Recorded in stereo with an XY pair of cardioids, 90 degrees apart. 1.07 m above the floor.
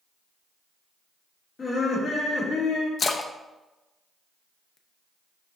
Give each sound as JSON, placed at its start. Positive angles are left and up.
{"t": 1.6, "sound": "laughter", "azimuth_deg": 60, "distance_m": 3.0}
{"t": 3.0, "sound": "a splash", "azimuth_deg": 45, "distance_m": 0.7}